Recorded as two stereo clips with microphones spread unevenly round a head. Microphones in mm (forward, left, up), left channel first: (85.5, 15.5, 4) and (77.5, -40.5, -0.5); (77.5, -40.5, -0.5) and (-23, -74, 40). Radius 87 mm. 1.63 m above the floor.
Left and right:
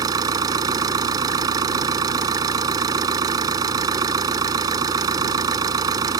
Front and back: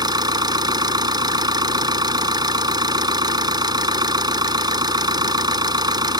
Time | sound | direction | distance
0.0 | an engine running | 115° right | ?